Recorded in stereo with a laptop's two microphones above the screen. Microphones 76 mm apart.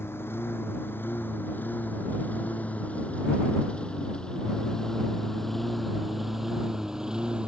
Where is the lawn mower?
30° left (ahead or behind); by 7.5 s 15° right (ahead or behind).